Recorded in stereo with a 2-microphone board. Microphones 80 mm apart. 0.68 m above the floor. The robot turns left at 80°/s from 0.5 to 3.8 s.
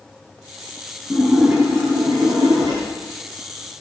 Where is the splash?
15° left, 6.5 m; by 2.8 s 125° right, 6.5 m.